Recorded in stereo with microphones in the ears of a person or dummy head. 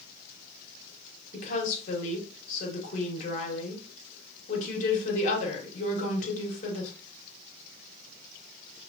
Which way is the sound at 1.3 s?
50° left (ahead or behind).